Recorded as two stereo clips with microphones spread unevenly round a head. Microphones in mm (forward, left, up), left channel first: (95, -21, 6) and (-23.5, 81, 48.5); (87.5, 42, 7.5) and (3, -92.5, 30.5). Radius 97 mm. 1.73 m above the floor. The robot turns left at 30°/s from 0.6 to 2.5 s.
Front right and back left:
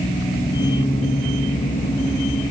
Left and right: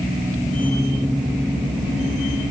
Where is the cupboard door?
No cupboard door in this recording.